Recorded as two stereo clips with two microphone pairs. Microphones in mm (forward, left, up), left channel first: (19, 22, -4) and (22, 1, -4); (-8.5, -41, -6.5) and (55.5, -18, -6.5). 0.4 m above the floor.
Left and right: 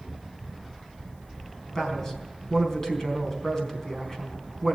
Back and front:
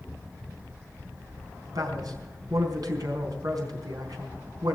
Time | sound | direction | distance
1.8 | a man speaking | 35° left | 4 m